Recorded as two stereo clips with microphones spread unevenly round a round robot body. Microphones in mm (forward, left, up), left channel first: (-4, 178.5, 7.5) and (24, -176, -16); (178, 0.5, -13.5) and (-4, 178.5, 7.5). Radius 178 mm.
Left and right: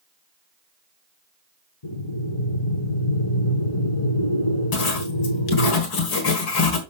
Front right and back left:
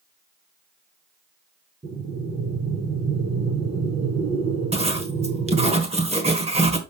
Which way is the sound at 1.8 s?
70° left.